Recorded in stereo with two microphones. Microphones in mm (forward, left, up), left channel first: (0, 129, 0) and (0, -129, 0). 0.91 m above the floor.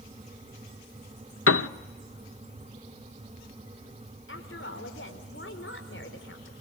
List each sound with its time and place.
1.5 s a piano: 55° left (ahead or behind), 0.7 m
4.3 s a woman speaking: 45° left (ahead or behind), 4 m